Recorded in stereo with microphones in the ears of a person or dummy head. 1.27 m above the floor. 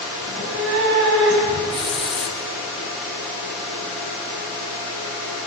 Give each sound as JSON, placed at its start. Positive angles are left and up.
{"t": 0.2, "sound": "a cat meowing", "side_deg": -65, "distance_m": 6.0}
{"t": 1.7, "sound": "a hiss", "side_deg": 0, "distance_m": 0.9}